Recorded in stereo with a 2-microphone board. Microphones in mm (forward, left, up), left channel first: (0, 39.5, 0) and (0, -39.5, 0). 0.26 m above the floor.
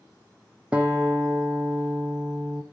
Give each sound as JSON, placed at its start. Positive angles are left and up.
{"t": 0.7, "sound": "a guitar", "side_deg": -15, "distance_m": 1.7}